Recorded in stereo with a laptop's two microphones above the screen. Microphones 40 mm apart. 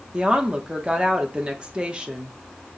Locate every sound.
0.1 s a woman speaking: 25° right (ahead or behind), 0.8 m